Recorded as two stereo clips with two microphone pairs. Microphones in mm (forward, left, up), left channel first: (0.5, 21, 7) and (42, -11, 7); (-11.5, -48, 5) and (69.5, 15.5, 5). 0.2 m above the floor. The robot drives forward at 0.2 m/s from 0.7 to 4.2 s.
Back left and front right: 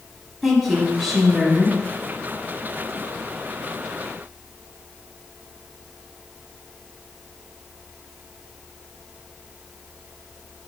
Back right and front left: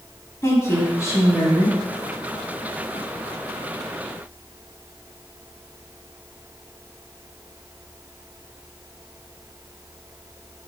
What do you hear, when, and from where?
0.4 s a woman speaking: 120° right, 1.0 m; by 1.8 s 140° right, 1.1 m